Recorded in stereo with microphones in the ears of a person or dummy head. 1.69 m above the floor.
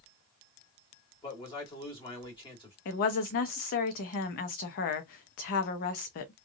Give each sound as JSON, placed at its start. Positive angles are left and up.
{"t": 1.2, "sound": "a man speaking", "side_deg": 25, "distance_m": 1.5}
{"t": 2.9, "sound": "a woman speaking", "side_deg": 50, "distance_m": 0.8}